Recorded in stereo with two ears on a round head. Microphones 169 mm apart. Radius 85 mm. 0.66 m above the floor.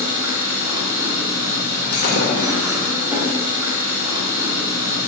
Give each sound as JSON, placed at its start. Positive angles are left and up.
{"t": 0.0, "sound": "an engine running", "side_deg": -10, "distance_m": 0.8}
{"t": 1.9, "sound": "breaking glass", "side_deg": 50, "distance_m": 0.6}